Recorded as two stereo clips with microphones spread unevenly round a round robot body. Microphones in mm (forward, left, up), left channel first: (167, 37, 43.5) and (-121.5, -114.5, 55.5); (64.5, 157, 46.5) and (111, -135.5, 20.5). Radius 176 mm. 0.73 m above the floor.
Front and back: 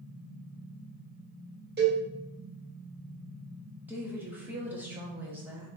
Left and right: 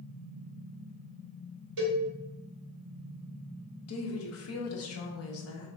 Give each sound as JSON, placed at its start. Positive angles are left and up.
{"t": 1.8, "sound": "a cowbell", "azimuth_deg": -90, "distance_m": 1.8}
{"t": 3.9, "sound": "a woman speaking", "azimuth_deg": 125, "distance_m": 0.8}